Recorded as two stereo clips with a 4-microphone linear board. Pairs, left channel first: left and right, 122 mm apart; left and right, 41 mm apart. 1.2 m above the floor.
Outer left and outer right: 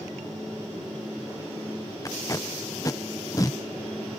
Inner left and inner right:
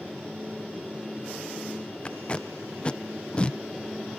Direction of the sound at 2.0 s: 30° left (ahead or behind).